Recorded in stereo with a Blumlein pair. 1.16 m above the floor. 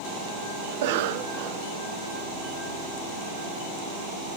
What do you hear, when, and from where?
0.7 s a cough: 50° right, 0.9 m